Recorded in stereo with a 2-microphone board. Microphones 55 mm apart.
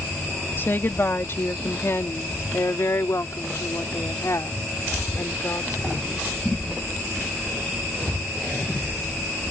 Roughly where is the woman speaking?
Left.